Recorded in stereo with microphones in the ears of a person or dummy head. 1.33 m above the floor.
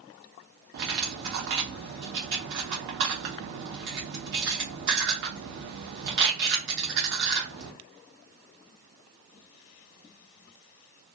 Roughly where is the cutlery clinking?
Right.